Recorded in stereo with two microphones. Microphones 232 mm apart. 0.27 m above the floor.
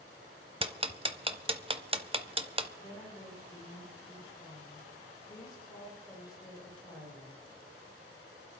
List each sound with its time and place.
0.6 s ticking: 25° right (ahead or behind), 0.8 m
2.8 s a woman speaking: 20° left (ahead or behind), 9.5 m